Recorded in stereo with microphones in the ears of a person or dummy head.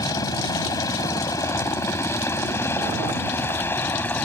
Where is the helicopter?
15° left (ahead or behind); by 4.2 s 10° left (ahead or behind).